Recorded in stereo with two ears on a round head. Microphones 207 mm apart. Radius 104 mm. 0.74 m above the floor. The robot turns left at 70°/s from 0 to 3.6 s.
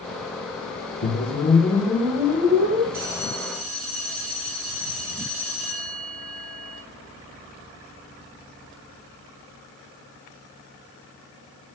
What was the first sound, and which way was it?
A whoosh, 65° left.